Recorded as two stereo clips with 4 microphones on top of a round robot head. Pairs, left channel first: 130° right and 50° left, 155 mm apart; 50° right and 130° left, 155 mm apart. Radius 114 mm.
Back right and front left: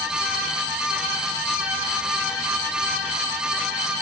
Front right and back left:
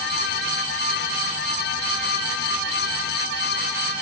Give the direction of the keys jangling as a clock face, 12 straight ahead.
No keys jangling in this recording.